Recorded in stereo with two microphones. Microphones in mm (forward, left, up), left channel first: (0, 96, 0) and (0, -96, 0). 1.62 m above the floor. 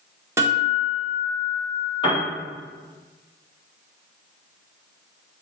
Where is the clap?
I don't hear a clap.